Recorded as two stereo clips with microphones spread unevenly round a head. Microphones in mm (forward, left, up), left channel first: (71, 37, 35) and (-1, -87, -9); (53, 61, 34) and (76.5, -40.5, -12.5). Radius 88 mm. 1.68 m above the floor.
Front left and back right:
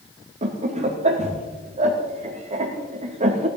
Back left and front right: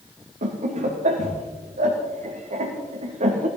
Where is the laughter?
75° right, 2.5 m.